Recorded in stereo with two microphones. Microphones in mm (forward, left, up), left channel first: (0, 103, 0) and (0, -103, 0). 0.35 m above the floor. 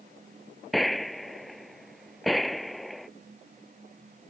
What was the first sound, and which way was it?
A gunshot, centre (ahead or behind).